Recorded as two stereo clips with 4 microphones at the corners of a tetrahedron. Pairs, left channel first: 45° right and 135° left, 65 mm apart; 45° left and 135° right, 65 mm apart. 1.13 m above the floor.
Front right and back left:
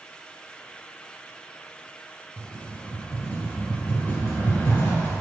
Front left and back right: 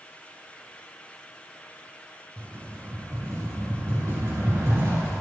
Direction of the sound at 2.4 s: 95° right.